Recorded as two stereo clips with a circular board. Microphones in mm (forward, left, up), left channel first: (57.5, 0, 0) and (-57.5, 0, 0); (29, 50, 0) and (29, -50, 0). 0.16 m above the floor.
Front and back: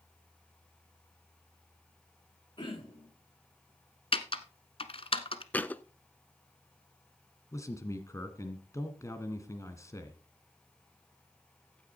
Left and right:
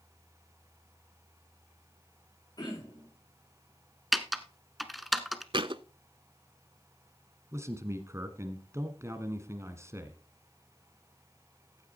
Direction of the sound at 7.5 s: 45° right.